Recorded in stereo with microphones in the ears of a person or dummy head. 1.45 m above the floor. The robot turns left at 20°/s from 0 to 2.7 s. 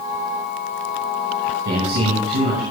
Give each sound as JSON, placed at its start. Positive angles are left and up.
{"t": 1.6, "sound": "a man speaking", "side_deg": -60, "distance_m": 6.0}